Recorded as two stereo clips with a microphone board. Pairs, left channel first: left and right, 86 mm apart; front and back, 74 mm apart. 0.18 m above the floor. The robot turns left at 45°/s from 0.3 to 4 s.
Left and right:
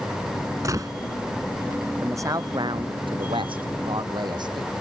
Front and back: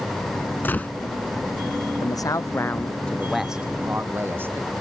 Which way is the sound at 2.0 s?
30° right.